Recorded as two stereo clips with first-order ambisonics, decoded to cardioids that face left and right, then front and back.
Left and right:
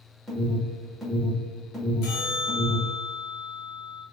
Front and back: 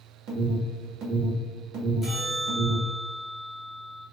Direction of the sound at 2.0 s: 85° left.